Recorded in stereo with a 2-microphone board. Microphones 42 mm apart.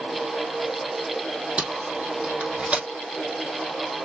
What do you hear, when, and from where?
1.6 s tape being pulled: 25° right (ahead or behind), 3 m